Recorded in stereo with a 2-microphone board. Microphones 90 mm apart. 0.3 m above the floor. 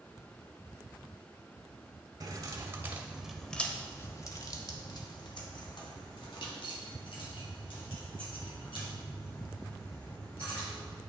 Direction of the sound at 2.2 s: 40° right (ahead or behind).